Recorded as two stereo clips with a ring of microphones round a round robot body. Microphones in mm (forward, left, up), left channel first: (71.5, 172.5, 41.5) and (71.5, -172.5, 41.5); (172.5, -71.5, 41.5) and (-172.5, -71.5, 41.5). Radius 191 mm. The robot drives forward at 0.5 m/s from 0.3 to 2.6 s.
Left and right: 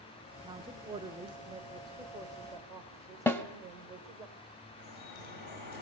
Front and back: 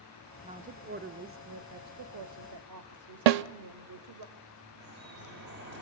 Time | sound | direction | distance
0.4 | a woman speaking | 135° right | 1.0 m
3.3 | a snare drum | 175° left | 0.6 m
4.8 | dripping | 120° left | 3 m